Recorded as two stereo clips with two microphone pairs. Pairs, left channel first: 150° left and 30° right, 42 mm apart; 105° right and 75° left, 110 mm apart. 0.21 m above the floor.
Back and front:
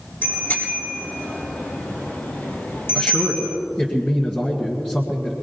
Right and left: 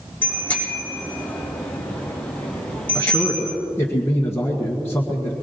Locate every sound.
0.2 s a bicycle bell: straight behind, 6 m; by 3.6 s 175° left, 3 m
3.0 s a man speaking: 160° right, 1.8 m